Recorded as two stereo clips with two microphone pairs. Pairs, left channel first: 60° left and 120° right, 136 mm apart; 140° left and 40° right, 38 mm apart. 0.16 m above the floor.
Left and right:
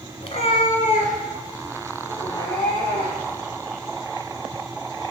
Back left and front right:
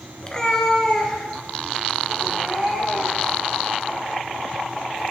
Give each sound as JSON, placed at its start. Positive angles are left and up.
{"t": 0.2, "sound": "a cat meowing", "azimuth_deg": 90, "distance_m": 0.6}